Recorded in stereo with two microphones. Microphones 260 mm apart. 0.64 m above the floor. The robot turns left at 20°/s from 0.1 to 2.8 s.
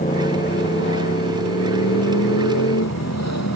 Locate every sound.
0.0 s a motorcycle: 150° left; by 3.6 s 95° left